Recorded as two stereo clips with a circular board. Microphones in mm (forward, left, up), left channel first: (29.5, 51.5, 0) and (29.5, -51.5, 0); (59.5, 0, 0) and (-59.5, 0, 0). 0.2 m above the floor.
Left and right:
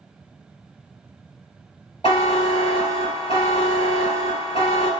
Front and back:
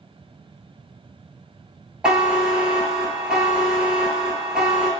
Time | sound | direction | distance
2.0 | a buzzer | 95° left | 0.5 m